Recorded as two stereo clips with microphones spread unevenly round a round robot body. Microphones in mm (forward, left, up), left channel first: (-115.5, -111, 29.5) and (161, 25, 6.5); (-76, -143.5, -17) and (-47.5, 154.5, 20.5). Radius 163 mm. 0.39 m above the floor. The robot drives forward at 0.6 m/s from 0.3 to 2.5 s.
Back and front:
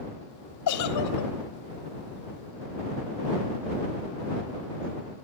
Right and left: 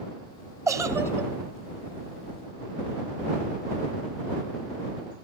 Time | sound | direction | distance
0.7 | a giggle | 165° left | 1.7 m